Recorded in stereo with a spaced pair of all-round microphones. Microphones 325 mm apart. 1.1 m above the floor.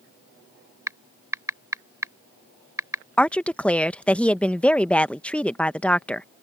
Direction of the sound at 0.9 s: 10° right (ahead or behind).